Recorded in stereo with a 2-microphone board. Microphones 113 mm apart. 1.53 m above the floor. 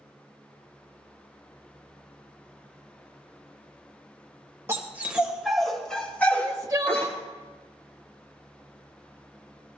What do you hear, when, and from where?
4.7 s a dog barking: 25° right (ahead or behind), 2 m; by 7.1 s 25° left (ahead or behind), 3.5 m
6.3 s crying: 30° right (ahead or behind), 0.7 m